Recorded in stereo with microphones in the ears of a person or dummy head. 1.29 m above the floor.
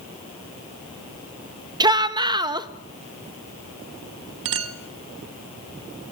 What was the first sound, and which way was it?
A shout, 25° right (ahead or behind).